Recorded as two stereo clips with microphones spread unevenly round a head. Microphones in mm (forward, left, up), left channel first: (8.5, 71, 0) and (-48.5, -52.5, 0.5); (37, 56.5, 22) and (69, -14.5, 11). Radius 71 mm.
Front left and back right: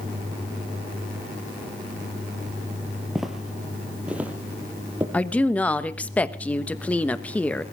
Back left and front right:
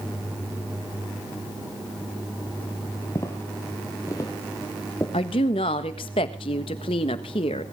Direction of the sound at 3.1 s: 155° left.